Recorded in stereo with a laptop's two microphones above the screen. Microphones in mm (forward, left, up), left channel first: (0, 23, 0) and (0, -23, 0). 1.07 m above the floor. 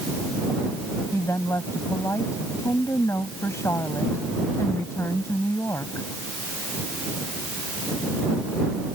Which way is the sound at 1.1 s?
85° left.